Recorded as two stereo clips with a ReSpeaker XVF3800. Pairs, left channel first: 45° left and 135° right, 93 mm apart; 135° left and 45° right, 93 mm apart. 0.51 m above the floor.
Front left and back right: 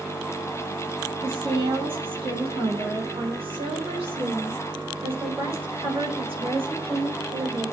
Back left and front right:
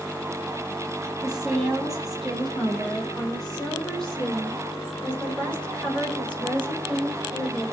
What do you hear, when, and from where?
1.2 s a woman speaking: 130° right, 3.5 m; by 7.6 s 150° right, 8 m